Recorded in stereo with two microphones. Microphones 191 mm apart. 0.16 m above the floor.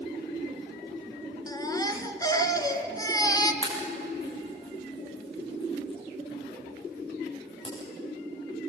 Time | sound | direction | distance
1.5 | a baby crying | 20° left (ahead or behind) | 1.6 m
3.6 | a pop | 25° left (ahead or behind) | 7.5 m